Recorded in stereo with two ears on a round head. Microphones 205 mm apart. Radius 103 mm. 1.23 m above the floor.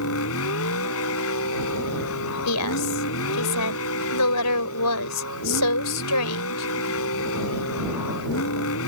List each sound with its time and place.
0.0 s a vehicle: 65° left (ahead or behind)
2.5 s a woman speaking: 80° left